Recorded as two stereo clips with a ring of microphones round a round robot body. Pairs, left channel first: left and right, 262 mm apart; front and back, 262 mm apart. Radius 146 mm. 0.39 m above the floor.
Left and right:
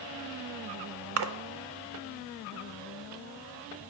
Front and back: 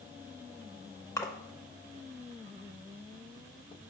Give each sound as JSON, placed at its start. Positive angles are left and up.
{"t": 1.2, "sound": "a splash", "azimuth_deg": -80, "distance_m": 0.5}